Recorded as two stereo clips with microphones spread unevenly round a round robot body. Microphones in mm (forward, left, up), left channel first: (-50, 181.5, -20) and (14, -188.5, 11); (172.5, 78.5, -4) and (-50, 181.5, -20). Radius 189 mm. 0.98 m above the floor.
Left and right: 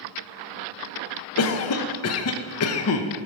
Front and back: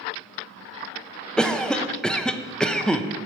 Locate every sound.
1.4 s a cough: 65° left, 0.8 m